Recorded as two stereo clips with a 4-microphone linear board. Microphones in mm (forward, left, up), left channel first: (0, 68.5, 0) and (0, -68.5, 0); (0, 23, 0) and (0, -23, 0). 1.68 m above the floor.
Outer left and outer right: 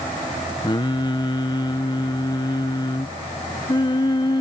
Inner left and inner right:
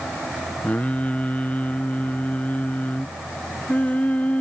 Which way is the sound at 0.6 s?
35° left (ahead or behind).